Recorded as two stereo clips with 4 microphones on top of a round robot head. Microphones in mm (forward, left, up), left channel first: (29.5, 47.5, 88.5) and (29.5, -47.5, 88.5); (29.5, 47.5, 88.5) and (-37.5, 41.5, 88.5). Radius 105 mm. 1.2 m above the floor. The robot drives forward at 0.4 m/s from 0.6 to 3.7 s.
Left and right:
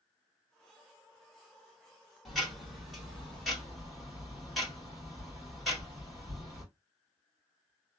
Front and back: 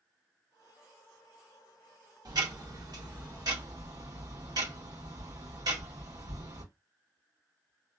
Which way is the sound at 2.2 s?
Straight behind.